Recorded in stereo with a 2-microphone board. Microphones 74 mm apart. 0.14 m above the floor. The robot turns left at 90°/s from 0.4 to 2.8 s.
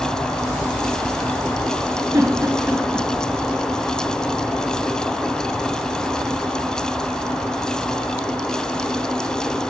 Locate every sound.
2.1 s a giggle: 45° right (ahead or behind), 1.5 m; by 3.1 s 20° right (ahead or behind), 1.5 m